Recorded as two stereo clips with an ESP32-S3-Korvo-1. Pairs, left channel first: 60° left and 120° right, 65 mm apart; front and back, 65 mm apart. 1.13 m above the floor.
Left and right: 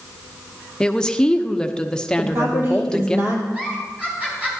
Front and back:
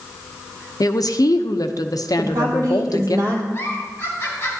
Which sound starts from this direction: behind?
A woman speaking, at 2.2 s.